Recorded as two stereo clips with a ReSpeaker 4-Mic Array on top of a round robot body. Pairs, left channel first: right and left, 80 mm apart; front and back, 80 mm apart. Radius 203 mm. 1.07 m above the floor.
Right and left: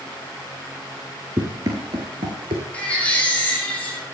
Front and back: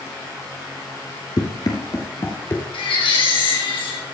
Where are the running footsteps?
35° left, 1.3 m; by 2.6 s 70° left, 1.5 m.